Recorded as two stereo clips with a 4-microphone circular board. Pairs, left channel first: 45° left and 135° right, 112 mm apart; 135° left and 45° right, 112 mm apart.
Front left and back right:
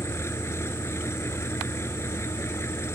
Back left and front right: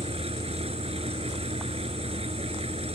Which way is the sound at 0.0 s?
20° right.